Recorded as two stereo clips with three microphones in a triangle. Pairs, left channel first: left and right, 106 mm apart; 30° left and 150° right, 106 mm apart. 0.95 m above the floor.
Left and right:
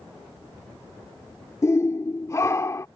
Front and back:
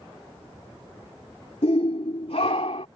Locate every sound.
1.6 s a shout: 30° left